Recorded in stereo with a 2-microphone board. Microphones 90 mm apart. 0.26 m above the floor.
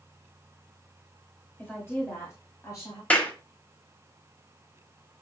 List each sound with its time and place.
1.6 s a woman speaking: 20° left (ahead or behind), 1.5 m; by 3.0 s 45° left (ahead or behind), 1.8 m
3.1 s a clap: 15° left (ahead or behind), 0.9 m